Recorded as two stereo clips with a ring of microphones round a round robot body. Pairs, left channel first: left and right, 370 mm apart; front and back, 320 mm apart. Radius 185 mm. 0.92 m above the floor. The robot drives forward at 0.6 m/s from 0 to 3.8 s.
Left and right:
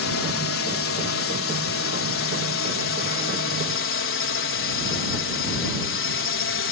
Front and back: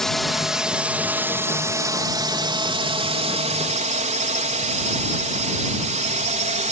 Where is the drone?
85° left; by 6.7 s 125° left.